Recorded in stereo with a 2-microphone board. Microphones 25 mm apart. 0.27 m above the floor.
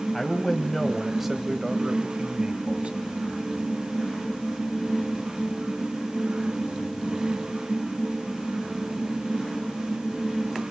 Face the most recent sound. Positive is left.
turn(degrees=-50)  # may be behind; listen again after turning